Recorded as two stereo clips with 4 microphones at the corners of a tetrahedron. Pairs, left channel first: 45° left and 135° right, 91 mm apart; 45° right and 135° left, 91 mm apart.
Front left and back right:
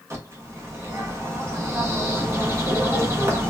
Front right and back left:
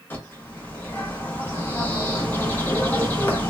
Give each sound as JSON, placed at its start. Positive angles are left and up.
{"t": 0.1, "sound": "a bird", "azimuth_deg": -95, "distance_m": 0.8}